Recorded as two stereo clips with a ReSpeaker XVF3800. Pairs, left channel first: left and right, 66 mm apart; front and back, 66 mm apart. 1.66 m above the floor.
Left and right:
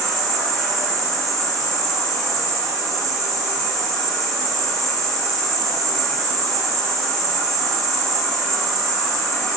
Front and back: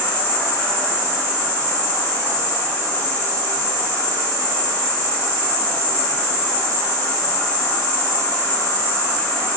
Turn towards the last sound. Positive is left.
turn(degrees=10)